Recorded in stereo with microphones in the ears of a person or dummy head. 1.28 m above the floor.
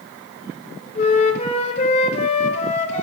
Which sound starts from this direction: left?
A flute, at 0.9 s.